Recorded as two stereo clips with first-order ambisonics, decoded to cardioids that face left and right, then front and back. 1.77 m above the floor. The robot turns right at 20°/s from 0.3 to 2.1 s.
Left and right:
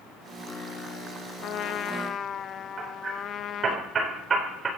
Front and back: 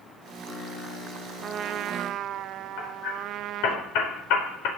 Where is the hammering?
20° right, 4.5 m.